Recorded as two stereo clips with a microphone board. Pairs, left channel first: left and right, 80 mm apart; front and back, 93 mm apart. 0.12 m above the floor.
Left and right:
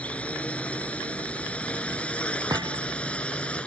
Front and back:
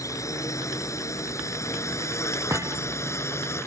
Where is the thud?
120° right.